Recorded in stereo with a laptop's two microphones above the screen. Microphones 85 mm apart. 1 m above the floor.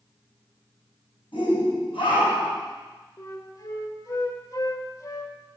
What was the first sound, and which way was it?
A shout, 70° left (ahead or behind).